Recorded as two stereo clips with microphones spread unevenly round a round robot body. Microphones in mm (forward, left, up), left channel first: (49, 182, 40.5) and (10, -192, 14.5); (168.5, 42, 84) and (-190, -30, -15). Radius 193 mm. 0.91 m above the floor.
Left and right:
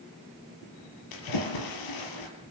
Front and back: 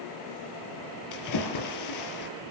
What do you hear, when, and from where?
1.1 s a splash: 50° left, 5.5 m